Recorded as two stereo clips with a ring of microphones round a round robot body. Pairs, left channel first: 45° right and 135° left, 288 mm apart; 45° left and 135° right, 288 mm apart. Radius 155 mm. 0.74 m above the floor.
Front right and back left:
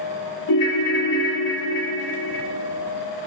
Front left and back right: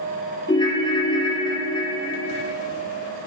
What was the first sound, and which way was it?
A ringtone, 30° right.